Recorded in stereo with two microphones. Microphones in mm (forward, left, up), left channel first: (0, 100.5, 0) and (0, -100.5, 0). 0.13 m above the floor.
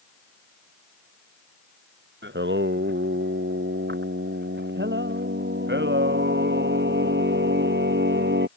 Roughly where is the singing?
Right.